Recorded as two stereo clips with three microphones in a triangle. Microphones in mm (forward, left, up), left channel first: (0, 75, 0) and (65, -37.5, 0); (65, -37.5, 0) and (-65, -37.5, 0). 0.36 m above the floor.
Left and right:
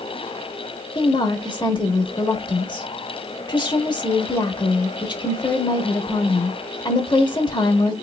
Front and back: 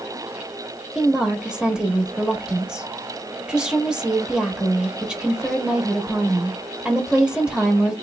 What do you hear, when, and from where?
0.9 s a woman speaking: 100° left, 1.0 m